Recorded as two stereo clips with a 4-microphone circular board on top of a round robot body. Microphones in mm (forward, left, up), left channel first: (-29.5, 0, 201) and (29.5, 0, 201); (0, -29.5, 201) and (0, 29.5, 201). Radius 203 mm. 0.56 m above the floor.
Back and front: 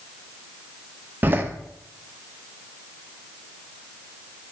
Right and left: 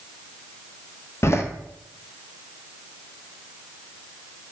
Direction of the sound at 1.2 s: 55° right.